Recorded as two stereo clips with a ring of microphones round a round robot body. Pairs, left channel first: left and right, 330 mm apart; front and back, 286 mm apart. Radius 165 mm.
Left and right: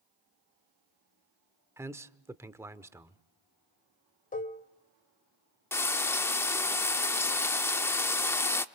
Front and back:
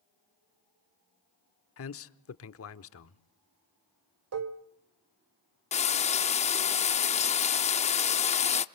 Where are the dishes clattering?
155° left, 1.3 m.